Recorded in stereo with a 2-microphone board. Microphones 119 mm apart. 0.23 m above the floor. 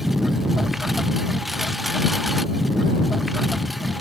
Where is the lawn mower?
Centre (ahead or behind).